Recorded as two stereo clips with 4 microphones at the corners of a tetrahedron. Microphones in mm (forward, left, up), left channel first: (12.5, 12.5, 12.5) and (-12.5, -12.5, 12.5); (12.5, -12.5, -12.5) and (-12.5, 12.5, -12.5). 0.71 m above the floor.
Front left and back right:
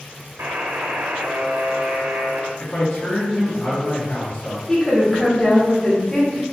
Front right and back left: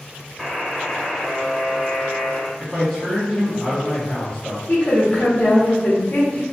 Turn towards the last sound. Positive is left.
turn(degrees=-30)